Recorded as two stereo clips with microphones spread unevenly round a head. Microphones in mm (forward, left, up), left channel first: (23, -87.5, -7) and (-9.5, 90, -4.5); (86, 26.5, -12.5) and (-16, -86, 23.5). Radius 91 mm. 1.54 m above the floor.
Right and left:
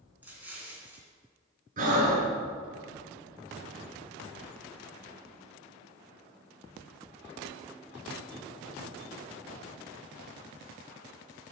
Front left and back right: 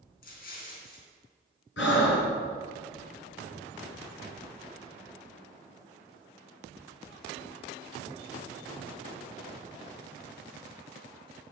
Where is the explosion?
20° left, 3 m.